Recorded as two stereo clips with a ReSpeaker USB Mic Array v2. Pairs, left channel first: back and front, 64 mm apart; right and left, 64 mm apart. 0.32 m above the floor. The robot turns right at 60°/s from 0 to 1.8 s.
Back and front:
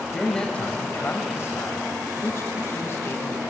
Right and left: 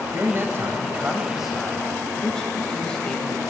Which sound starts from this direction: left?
A man speaking, at 0.1 s.